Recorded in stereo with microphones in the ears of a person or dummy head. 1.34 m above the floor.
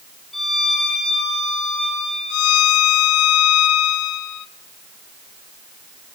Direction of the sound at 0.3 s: 5° left (ahead or behind).